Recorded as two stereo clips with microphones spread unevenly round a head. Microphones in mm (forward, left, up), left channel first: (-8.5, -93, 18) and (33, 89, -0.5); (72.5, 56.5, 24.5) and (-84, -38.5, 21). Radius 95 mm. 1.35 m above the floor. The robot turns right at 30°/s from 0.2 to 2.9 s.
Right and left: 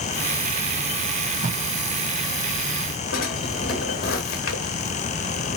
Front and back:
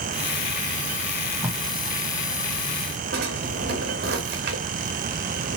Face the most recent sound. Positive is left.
turn(degrees=-120)